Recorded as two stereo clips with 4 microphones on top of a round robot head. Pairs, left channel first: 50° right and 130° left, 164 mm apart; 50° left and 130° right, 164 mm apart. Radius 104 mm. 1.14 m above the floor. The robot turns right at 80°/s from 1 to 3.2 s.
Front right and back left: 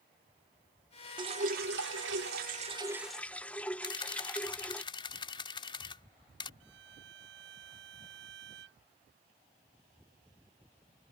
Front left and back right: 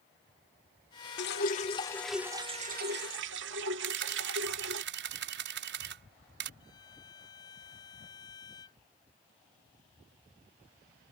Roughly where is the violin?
Behind left.